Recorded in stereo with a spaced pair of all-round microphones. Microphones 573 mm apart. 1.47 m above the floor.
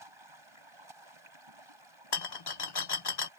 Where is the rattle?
45° left (ahead or behind).